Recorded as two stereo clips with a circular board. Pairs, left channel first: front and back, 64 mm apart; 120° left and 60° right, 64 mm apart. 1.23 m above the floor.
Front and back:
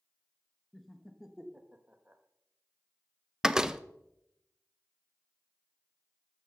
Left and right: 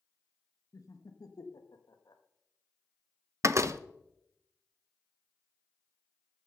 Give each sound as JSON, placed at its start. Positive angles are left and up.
{"t": 0.7, "sound": "laughter", "azimuth_deg": 85, "distance_m": 1.3}
{"t": 3.4, "sound": "a door slam", "azimuth_deg": -100, "distance_m": 0.6}